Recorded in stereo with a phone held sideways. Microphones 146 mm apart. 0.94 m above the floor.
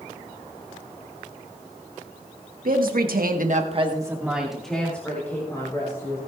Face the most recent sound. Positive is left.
turn(degrees=20)  # may be behind; listen again after turning